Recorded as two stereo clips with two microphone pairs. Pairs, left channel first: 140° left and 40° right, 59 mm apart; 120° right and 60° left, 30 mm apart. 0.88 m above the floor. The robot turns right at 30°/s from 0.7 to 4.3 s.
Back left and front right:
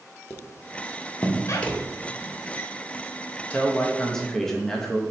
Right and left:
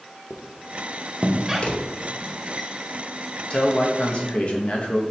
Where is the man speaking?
165° right, 0.7 m; by 5.0 s 140° right, 0.7 m.